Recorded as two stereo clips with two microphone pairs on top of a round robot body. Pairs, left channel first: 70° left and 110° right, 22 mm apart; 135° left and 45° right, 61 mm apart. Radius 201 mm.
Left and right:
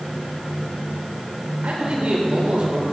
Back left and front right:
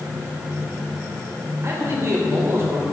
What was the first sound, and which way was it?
A man speaking, 90° right.